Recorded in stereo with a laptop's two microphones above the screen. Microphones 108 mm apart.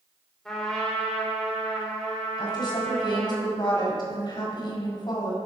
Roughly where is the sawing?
No sawing in this recording.